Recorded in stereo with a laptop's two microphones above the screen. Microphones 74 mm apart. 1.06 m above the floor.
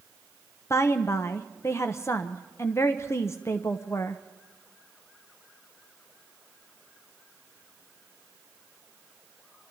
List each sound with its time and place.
0.7 s a woman speaking: 40° left (ahead or behind), 0.7 m